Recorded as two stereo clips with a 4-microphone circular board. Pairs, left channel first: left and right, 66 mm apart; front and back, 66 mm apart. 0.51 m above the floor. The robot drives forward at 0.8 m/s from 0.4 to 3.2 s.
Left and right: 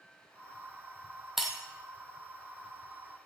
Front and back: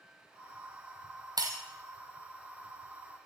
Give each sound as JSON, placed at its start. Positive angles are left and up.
{"t": 1.4, "sound": "breaking glass", "azimuth_deg": -175, "distance_m": 1.3}